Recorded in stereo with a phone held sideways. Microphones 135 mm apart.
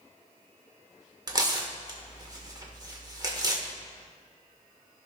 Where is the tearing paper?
30° right (ahead or behind), 1.4 m.